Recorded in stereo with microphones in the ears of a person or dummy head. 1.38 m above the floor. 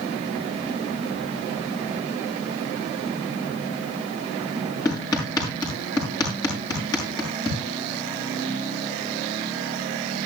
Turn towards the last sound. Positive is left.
turn(degrees=15)  # may be behind; listen again after turning